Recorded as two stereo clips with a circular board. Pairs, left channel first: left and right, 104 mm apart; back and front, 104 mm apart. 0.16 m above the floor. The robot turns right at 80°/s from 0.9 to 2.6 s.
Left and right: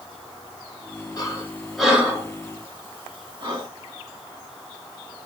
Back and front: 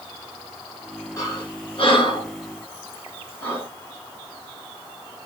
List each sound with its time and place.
1.2 s breathing: 130° left, 1.8 m; by 3.7 s 115° right, 1.8 m